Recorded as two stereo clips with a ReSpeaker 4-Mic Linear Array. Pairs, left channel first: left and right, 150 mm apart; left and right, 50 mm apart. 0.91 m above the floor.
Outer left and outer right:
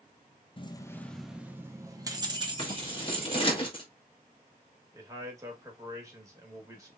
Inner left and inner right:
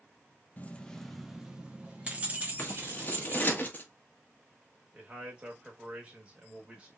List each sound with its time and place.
0.6 s keys jangling: 35° left (ahead or behind), 0.5 m; by 3.6 s 40° right (ahead or behind), 1.8 m
2.6 s scissors: 35° left (ahead or behind), 1.1 m
4.9 s a man speaking: 20° right (ahead or behind), 1.6 m